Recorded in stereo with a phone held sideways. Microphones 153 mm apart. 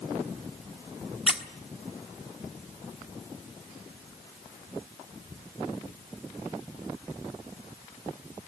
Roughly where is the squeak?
Centre.